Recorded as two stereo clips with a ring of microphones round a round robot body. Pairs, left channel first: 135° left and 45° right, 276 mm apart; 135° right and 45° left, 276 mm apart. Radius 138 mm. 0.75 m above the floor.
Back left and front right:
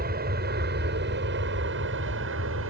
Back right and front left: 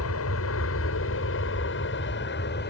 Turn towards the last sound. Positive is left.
turn(degrees=-85)